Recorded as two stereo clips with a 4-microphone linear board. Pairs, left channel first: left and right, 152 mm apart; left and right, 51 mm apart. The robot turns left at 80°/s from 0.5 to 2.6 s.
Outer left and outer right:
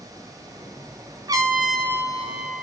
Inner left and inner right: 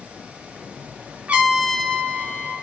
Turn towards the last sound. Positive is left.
turn(degrees=110)